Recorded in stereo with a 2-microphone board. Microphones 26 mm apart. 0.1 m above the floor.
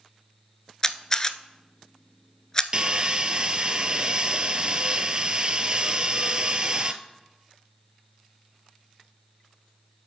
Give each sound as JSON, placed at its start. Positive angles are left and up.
{"t": 0.8, "sound": "a camera shutter", "side_deg": 25, "distance_m": 0.5}
{"t": 2.7, "sound": "sawing", "side_deg": -40, "distance_m": 0.6}